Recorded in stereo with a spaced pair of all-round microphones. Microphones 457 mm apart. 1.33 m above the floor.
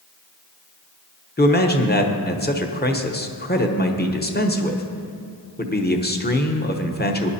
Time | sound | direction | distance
1.4 | a man speaking | 20° left (ahead or behind) | 0.9 m